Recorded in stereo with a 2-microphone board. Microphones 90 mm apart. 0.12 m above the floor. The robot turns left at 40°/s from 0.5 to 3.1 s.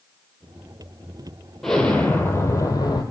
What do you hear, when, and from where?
1.6 s an explosion: 175° left, 0.7 m; by 3.0 s 120° left, 0.7 m